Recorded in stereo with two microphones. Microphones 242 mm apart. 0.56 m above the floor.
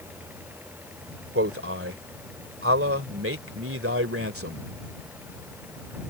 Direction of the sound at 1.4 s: 65° right (ahead or behind).